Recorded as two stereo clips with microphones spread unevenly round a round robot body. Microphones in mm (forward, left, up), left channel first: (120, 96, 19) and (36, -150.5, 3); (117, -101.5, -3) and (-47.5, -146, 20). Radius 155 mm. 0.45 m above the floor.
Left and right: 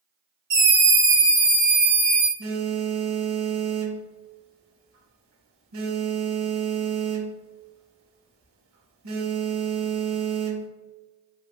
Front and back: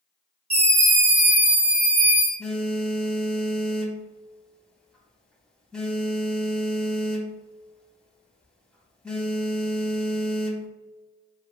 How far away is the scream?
About 1.0 m.